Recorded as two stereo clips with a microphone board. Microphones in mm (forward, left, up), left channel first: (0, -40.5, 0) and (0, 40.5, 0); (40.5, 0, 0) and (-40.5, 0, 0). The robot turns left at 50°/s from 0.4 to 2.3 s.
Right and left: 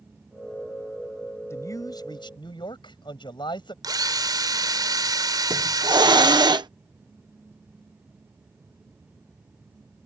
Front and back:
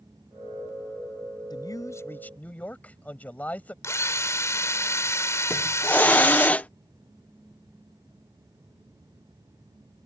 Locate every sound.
1.5 s a man speaking: 35° right; by 3.7 s 75° right
3.8 s a drill: 55° left
5.5 s a hiss: 70° left